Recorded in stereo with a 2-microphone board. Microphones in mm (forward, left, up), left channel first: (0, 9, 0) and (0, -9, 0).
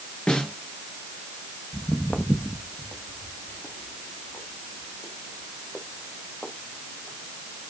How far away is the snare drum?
About 4 m.